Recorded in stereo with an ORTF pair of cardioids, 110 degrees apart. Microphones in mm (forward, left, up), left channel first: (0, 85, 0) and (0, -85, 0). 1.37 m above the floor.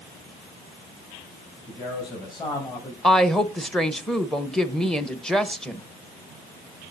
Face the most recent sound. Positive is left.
turn(degrees=5)